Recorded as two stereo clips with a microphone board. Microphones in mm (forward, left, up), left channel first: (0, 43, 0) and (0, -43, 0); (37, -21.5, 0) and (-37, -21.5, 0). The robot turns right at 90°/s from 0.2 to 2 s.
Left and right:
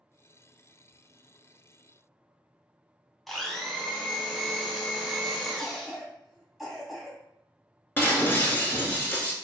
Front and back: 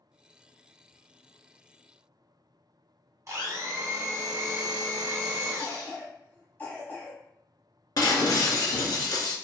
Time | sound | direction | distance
0.9 | whispering | 65° left | 1.6 m
3.3 | a blender | 175° left | 0.6 m
5.6 | a cough | 10° right | 1.0 m
8.0 | breaking glass | 25° left | 0.6 m